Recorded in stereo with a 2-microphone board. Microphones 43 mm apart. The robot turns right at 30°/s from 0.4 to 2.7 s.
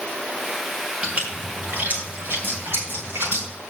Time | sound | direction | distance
1.0 | a splash | 25° right (ahead or behind) | 4.5 m